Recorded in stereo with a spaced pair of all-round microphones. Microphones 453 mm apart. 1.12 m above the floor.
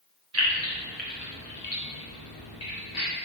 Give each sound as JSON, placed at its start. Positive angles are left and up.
{"t": 0.3, "sound": "keys jangling", "side_deg": -35, "distance_m": 0.7}